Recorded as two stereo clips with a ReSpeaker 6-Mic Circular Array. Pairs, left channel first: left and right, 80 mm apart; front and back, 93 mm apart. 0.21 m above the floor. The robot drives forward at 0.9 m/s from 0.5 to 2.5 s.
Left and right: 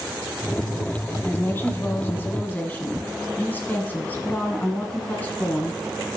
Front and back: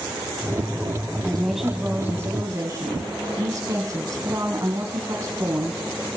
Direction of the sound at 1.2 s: 70° left.